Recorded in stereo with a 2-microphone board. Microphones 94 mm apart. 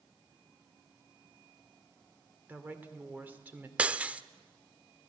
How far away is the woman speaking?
About 2 m.